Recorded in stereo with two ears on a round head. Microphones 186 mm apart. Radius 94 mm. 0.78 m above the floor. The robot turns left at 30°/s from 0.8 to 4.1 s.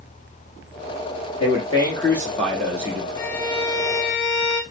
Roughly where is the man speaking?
Ahead left.